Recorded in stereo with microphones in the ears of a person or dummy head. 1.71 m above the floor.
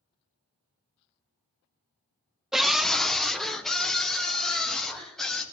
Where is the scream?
Centre (ahead or behind), 0.5 m.